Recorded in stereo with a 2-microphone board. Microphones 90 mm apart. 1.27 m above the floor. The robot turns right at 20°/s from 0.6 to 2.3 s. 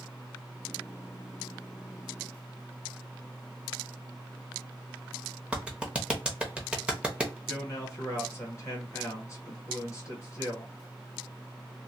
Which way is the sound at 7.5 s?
35° left (ahead or behind).